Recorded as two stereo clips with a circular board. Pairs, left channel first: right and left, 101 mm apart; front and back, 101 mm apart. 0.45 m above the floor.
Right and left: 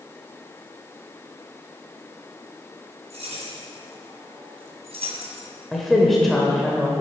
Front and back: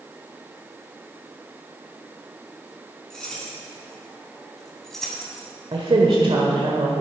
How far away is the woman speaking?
About 1.4 m.